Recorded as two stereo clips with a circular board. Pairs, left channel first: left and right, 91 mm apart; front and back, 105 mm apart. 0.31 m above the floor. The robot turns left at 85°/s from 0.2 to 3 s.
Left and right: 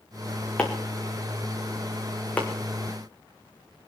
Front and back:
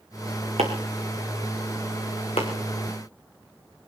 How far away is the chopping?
About 4 m.